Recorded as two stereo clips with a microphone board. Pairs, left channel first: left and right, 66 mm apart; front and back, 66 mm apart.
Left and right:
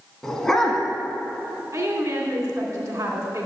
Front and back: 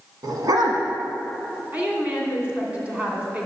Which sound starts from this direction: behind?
A dog barking, at 0.2 s.